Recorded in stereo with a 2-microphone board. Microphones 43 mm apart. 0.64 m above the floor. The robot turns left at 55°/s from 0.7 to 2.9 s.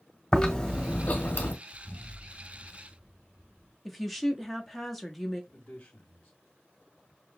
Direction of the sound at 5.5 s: 35° left (ahead or behind).